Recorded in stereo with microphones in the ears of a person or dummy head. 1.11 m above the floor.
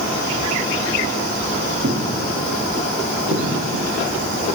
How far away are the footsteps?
About 2.5 m.